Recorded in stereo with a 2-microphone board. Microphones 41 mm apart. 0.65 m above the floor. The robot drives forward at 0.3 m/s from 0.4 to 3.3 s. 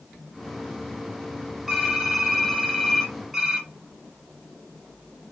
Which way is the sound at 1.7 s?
5° right (ahead or behind).